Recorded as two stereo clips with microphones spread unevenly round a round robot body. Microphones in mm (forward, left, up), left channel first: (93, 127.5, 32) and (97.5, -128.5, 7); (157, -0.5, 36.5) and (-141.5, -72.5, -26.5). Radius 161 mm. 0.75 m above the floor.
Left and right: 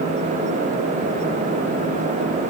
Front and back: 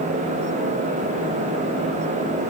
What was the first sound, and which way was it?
Only background noise.